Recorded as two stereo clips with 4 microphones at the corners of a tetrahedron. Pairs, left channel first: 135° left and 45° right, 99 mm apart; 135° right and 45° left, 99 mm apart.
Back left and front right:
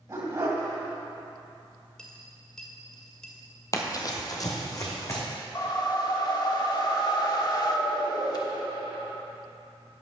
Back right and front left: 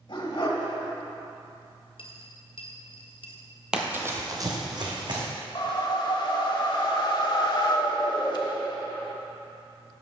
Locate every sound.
0.1 s a dog barking: 100° right, 2 m
2.0 s a dropped coin: 140° right, 1.7 m
3.7 s running footsteps: 120° left, 0.9 m; by 5.2 s 80° left, 2.5 m
5.5 s a whoosh: straight behind, 0.9 m